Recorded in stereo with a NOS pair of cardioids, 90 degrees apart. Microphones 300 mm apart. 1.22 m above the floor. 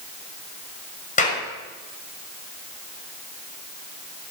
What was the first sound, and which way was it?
A clap, 25° left.